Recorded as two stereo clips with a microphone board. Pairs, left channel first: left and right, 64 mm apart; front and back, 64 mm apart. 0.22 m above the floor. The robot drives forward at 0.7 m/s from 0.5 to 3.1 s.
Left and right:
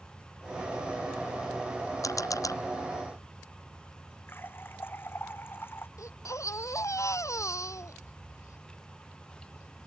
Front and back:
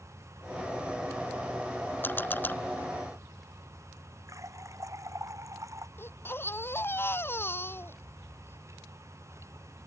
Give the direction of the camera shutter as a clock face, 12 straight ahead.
10 o'clock.